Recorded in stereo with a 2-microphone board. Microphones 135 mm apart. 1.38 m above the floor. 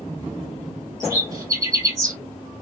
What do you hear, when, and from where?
1.0 s a bird: 25° right (ahead or behind), 3 m